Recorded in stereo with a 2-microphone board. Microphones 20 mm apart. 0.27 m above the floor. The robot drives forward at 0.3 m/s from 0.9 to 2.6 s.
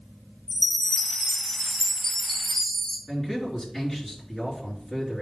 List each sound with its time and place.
0.5 s a chime: 35° left (ahead or behind), 2 m; by 3.0 s 30° left (ahead or behind), 2.5 m
3.1 s a man speaking: 25° left (ahead or behind), 4 m